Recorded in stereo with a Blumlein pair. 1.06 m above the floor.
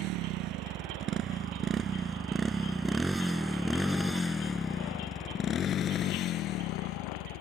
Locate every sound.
0.0 s a motorcycle: 40° right; by 7.4 s 40° left